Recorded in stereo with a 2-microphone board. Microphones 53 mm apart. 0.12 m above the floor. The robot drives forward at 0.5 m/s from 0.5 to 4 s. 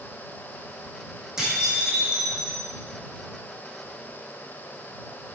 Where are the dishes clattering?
10° right (ahead or behind), 4 m.